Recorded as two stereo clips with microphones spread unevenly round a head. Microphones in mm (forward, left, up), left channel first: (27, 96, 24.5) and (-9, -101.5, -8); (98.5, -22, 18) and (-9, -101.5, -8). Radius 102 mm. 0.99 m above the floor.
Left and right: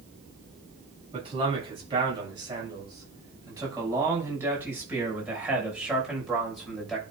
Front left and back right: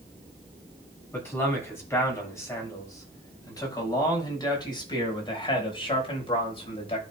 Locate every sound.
1.1 s a man speaking: 40° right, 7 m; by 7.0 s 10° right, 6 m